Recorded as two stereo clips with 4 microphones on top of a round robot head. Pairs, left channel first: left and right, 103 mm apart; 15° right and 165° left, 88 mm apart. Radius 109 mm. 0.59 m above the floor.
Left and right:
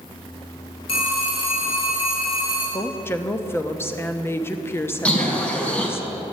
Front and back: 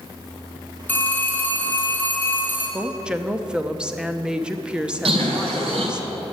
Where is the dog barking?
I don't hear a dog barking.